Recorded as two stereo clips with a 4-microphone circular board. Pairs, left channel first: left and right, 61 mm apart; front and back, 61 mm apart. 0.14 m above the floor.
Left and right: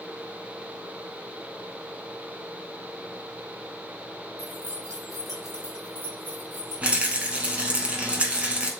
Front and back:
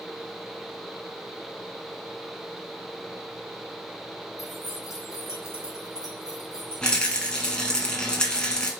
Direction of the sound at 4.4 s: 100° left.